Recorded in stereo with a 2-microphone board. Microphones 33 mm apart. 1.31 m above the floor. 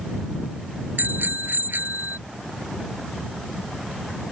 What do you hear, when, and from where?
1.0 s a bicycle bell: 80° right; by 2.2 s 75° right (ahead or behind)